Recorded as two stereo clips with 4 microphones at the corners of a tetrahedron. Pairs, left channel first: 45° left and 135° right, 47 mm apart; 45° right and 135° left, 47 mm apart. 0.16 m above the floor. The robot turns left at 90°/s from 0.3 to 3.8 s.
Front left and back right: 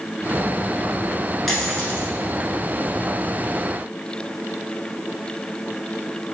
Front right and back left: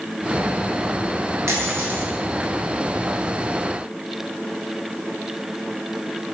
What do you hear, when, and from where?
1.5 s a dropped coin: 130° left, 0.9 m; by 2.1 s 75° left, 0.9 m